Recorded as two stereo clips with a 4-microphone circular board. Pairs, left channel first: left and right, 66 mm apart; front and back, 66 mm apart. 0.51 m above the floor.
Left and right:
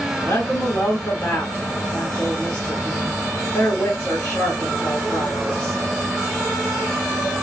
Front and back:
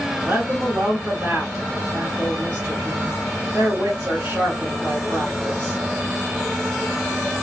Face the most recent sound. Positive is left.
turn(degrees=135)